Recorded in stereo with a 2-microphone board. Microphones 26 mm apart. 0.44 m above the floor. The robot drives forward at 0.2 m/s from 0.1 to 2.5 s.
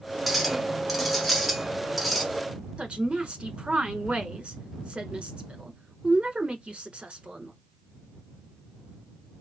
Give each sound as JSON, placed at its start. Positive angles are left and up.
{"t": 0.3, "sound": "a clink", "side_deg": -5, "distance_m": 0.8}
{"t": 2.8, "sound": "a woman speaking", "side_deg": -50, "distance_m": 1.1}